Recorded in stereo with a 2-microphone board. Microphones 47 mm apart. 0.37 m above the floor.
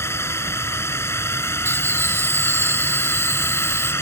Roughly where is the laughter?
Right.